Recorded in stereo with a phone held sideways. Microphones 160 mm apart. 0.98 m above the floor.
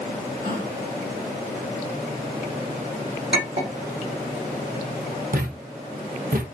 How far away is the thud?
About 0.9 m.